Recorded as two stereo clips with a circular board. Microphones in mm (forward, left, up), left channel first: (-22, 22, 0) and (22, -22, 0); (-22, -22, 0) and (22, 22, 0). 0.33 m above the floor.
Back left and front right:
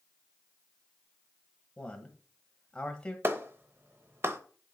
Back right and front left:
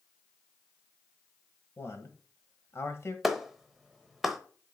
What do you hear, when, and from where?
1.8 s a man speaking: 150° right, 1.3 m
3.2 s a clap: 40° right, 0.8 m